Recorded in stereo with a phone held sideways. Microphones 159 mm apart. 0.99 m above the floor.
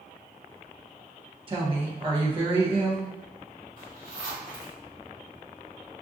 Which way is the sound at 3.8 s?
55° right (ahead or behind).